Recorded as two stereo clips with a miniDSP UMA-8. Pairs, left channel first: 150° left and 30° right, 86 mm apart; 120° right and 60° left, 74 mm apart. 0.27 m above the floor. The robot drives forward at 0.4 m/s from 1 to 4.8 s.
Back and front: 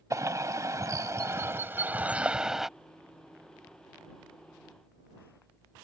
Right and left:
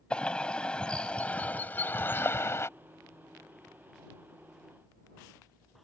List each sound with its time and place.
0.1 s a bird: 50° right; by 2.7 s 115° right